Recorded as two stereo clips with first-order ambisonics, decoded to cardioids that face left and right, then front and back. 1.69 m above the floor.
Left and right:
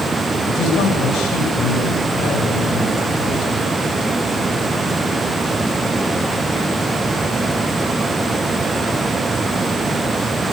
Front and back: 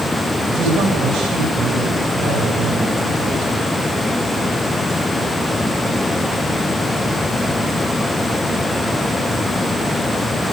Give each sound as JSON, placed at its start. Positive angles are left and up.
{"t": 0.5, "sound": "a man speaking", "azimuth_deg": 130, "distance_m": 8.5}